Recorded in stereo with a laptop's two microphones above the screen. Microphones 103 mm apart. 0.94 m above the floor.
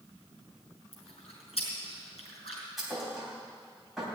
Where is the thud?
5° right (ahead or behind), 3 m.